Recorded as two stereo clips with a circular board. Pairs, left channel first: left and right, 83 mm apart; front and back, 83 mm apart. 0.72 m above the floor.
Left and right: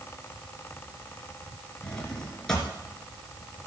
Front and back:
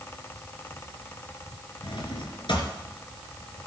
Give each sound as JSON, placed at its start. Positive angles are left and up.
{"t": 1.8, "sound": "a drawer", "azimuth_deg": 10, "distance_m": 3.0}